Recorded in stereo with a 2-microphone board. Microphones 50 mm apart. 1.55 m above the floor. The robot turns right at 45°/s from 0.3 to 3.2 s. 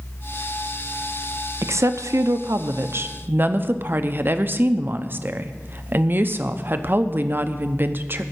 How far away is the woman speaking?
About 0.8 m.